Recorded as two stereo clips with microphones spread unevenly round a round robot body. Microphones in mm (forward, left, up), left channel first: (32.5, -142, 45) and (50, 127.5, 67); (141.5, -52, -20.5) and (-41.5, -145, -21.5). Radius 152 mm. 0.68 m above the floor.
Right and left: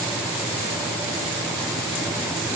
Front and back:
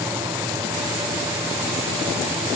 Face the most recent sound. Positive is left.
No sound to turn to.